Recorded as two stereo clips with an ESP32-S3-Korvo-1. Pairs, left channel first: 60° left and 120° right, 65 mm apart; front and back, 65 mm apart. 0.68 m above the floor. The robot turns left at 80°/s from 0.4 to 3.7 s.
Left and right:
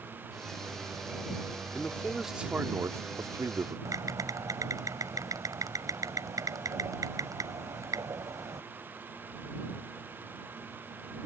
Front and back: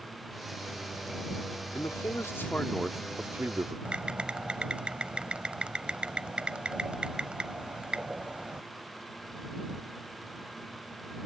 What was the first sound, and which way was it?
A man speaking, 5° left.